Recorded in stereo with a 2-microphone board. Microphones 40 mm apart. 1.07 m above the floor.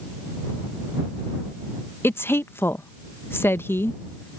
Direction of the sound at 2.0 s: 70° left (ahead or behind).